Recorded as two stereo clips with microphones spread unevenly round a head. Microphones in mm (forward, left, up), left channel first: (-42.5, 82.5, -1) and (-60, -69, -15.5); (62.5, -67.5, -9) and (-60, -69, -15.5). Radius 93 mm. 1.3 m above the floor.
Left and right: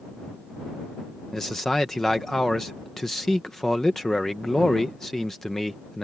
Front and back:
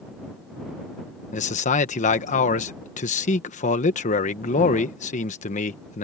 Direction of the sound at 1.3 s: 5° right.